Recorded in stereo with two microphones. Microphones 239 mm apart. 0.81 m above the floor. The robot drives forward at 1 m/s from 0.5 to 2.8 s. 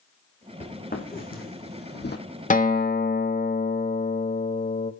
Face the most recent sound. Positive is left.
turn(degrees=40)  # may be behind; listen again after turning